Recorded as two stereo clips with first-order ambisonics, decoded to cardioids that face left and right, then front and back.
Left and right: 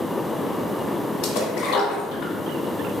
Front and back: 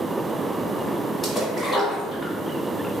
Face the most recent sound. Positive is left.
turn(degrees=75)